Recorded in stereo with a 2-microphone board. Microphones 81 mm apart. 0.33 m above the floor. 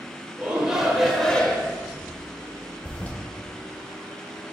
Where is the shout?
15° right (ahead or behind), 0.9 m; by 1.8 s 20° left (ahead or behind), 0.9 m.